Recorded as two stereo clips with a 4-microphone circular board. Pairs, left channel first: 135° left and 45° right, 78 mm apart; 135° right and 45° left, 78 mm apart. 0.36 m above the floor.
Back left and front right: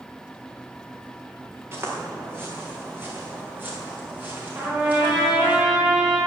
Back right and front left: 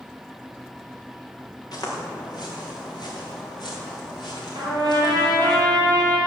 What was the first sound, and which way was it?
Footsteps, 100° right.